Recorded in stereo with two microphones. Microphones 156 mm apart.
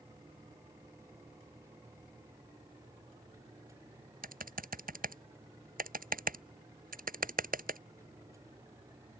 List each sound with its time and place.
4.2 s typing on a keyboard: 70° right (ahead or behind)